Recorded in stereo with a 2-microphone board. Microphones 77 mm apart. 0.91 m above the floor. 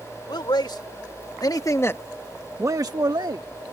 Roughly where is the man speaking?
Left.